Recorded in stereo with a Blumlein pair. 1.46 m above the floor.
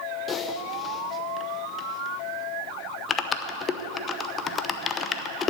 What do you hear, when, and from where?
0.3 s typing on a keyboard: 20° left, 0.9 m